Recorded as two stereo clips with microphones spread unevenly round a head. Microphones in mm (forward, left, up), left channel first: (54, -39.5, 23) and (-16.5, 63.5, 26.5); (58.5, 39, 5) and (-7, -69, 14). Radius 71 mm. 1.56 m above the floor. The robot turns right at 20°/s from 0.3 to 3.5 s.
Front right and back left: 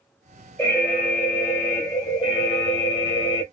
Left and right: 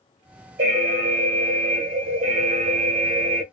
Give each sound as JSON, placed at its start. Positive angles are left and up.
{"t": 0.6, "sound": "an alarm", "azimuth_deg": -140, "distance_m": 1.1}